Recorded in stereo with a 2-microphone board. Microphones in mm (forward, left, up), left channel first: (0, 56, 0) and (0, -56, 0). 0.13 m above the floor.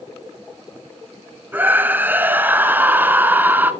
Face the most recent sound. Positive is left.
turn(degrees=-15)  # may be behind; listen again after turning